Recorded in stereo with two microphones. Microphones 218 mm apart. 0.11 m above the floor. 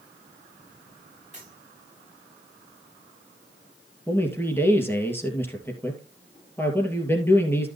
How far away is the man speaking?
About 2.5 m.